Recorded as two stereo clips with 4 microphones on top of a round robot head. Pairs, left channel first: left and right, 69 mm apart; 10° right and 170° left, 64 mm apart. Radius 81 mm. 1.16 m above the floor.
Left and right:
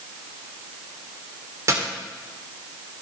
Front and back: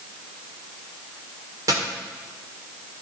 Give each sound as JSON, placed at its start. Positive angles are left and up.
{"t": 1.7, "sound": "a dropped coin", "azimuth_deg": -135, "distance_m": 1.5}